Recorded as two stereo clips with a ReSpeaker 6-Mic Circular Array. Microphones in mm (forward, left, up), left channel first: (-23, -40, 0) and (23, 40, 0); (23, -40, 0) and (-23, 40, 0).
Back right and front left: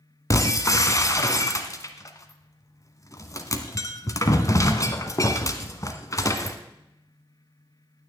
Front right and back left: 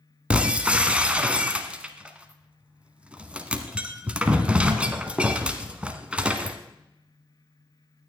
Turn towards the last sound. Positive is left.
turn(degrees=-165)